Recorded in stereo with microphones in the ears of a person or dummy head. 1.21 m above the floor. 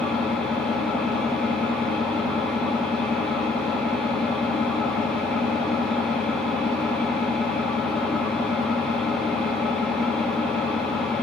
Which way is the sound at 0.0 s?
10° left (ahead or behind).